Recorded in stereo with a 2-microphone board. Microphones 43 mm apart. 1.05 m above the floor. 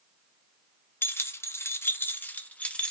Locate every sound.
1.0 s keys jangling: 60° left (ahead or behind), 0.6 m; by 2.9 s 25° left (ahead or behind), 0.9 m